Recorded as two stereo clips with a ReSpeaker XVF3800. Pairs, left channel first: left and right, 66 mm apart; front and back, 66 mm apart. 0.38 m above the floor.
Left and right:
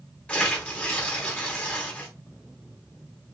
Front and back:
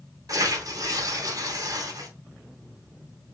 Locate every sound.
0.3 s tearing paper: 160° left, 2.5 m